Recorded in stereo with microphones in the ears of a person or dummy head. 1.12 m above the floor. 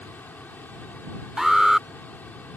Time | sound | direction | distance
0.0 | a machine running | 10° left (ahead or behind) | ?
1.4 | an alarm | 5° right (ahead or behind) | ?